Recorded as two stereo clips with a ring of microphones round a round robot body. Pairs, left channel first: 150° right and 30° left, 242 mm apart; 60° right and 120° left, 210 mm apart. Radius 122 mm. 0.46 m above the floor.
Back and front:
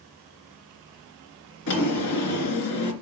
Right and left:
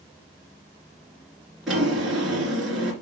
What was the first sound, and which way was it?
A drawer, 150° right.